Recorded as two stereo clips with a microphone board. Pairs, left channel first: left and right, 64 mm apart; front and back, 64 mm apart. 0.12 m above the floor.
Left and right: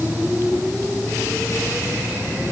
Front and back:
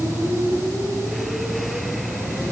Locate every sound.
Only background noise.